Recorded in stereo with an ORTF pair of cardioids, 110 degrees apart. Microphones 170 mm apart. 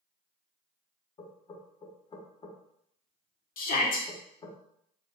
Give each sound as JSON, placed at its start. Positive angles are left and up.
{"t": 1.2, "sound": "knocking", "azimuth_deg": 30, "distance_m": 0.9}
{"t": 3.6, "sound": "a shout", "azimuth_deg": 60, "distance_m": 1.0}